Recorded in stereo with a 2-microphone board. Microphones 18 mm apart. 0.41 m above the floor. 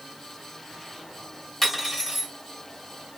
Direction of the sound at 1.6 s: 10° left (ahead or behind).